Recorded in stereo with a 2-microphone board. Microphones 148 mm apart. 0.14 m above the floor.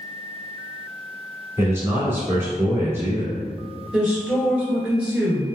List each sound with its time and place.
1.6 s a man speaking: 15° right (ahead or behind), 1.5 m
3.9 s a woman speaking: 5° right (ahead or behind), 1.7 m